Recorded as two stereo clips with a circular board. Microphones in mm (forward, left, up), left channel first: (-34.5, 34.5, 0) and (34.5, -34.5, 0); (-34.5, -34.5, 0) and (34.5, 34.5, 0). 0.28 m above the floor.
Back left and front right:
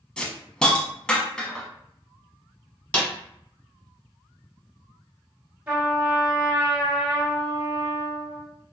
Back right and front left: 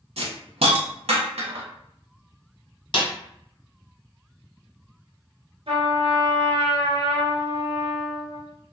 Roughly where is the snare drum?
Behind right.